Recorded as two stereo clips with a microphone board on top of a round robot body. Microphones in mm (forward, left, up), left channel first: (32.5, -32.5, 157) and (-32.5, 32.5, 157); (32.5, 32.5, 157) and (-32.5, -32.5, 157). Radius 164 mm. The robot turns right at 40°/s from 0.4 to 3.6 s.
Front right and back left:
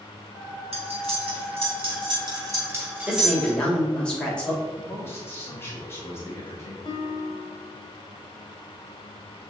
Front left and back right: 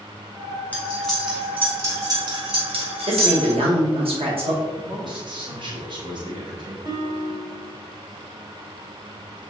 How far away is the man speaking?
About 2.5 m.